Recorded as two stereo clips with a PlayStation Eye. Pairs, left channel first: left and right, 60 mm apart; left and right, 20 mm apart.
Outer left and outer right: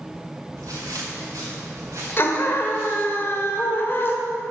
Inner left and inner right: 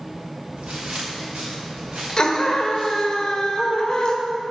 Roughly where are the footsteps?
Right.